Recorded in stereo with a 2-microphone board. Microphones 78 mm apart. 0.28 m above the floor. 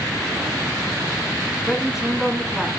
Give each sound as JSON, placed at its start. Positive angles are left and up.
{"t": 1.7, "sound": "a man speaking", "side_deg": -5, "distance_m": 2.0}